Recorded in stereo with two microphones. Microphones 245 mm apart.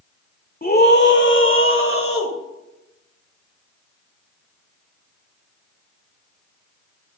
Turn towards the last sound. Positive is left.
turn(degrees=65)  # may be behind; listen again after turning